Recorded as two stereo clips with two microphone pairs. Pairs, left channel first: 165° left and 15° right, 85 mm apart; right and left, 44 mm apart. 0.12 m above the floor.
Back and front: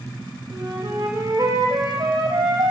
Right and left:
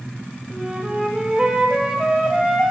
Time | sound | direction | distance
0.5 | a flute | 20° left | 3.5 m